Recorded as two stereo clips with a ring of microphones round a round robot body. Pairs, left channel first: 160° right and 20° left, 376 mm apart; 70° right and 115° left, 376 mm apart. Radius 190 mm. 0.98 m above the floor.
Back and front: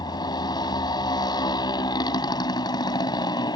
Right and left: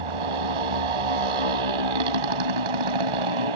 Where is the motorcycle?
125° left.